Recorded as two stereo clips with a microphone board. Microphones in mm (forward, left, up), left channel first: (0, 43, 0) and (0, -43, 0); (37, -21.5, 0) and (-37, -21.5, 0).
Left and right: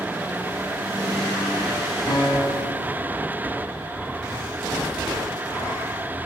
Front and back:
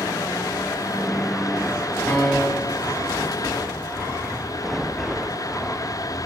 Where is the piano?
70° left, 1.5 m.